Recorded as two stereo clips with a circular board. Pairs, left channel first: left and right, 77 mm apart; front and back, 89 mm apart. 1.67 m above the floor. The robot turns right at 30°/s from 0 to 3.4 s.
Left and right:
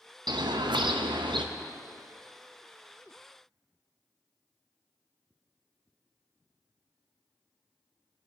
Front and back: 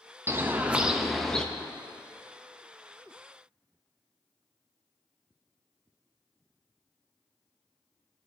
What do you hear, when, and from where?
0.3 s a bird: 115° right, 0.6 m; by 1.4 s 80° right, 0.6 m